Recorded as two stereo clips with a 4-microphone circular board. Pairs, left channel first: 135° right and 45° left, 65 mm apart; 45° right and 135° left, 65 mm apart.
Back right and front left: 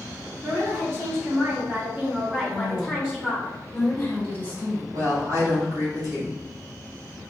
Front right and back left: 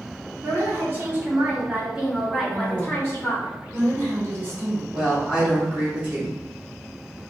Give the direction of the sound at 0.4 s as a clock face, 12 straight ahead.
9 o'clock.